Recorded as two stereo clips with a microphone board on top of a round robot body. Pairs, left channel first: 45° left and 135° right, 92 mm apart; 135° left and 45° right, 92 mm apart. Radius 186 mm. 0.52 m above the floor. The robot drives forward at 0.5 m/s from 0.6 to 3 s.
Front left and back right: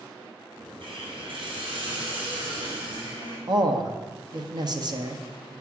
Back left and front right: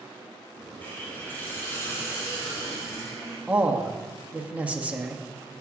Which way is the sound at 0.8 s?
155° right.